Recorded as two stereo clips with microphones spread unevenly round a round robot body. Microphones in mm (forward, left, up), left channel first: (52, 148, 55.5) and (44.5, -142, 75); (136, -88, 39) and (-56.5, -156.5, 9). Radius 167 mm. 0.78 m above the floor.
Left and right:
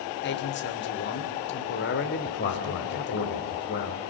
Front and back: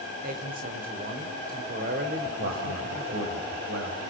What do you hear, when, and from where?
0.2 s a man speaking: 140° left, 3 m
2.2 s a man speaking: 145° left, 4 m